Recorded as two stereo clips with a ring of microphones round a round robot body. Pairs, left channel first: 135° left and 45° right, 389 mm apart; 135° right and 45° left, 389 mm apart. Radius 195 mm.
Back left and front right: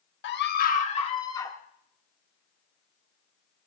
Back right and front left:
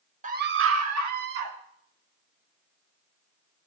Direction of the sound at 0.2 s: 100° left.